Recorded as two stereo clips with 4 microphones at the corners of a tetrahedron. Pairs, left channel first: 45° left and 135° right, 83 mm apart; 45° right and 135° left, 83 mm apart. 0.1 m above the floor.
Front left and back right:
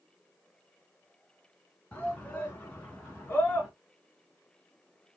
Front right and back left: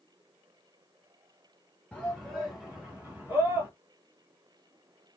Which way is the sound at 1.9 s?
10° left.